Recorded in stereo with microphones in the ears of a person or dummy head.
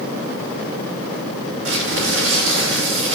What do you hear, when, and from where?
1.6 s crumpling: 80° right, 5 m